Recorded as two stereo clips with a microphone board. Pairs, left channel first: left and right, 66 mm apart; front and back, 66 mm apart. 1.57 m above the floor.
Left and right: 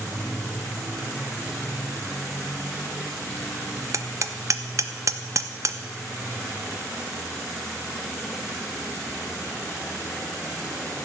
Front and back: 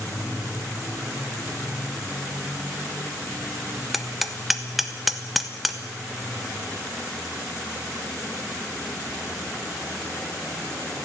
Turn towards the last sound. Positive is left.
turn(degrees=-95)